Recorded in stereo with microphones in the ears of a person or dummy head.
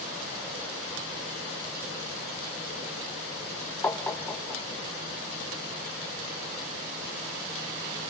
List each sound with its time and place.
3.8 s tapping: 10° left (ahead or behind), 0.6 m